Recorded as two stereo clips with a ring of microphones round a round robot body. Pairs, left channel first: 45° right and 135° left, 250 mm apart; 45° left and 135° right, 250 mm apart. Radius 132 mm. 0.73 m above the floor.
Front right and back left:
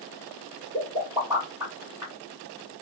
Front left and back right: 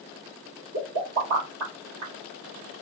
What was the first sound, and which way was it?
A pop, 150° right.